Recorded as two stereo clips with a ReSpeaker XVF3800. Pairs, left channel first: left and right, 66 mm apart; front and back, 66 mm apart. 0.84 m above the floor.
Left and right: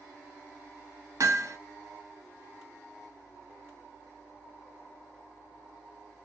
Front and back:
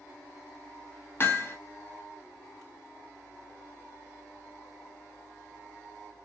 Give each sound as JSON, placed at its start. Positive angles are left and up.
{"t": 1.2, "sound": "hammering", "azimuth_deg": -55, "distance_m": 0.7}